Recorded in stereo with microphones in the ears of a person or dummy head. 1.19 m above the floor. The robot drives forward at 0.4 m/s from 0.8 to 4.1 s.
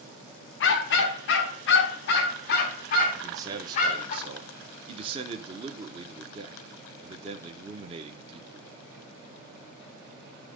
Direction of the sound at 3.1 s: 25° right (ahead or behind).